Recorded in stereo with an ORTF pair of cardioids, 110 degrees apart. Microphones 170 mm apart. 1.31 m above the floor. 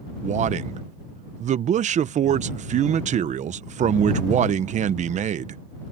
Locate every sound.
0.2 s a man speaking: 45° right